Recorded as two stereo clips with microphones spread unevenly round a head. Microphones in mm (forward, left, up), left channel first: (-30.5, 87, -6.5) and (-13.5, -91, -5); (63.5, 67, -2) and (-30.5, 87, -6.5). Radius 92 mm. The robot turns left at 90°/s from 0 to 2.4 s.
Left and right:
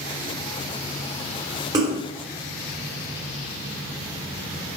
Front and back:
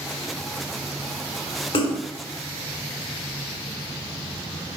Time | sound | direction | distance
1.7 | a splash | 20° right | 1.9 m